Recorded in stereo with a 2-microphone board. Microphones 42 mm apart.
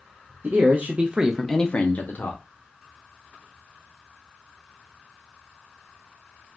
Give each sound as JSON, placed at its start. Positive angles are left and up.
{"t": 0.4, "sound": "a man speaking", "side_deg": -55, "distance_m": 0.9}